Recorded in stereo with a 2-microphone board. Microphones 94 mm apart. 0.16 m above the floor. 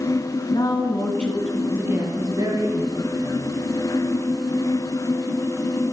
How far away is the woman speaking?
About 1.6 m.